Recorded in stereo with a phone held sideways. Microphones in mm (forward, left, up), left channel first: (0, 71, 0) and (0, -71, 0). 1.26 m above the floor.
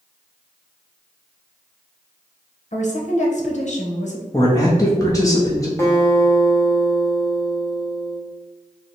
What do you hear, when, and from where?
2.7 s a woman speaking: 55° left (ahead or behind), 0.9 m
4.3 s a man speaking: 25° left (ahead or behind), 0.8 m
5.8 s a guitar: 20° left (ahead or behind), 1.0 m